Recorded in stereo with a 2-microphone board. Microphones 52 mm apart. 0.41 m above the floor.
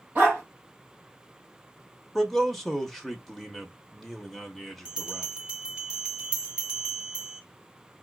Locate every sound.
0.1 s a dog barking: 35° right (ahead or behind), 3 m
2.1 s a man speaking: centre (ahead or behind), 1.0 m
4.8 s a bell: 20° right (ahead or behind), 1.0 m